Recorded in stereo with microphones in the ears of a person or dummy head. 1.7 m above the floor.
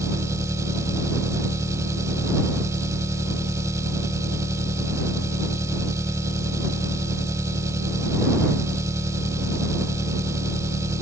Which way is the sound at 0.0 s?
20° right (ahead or behind).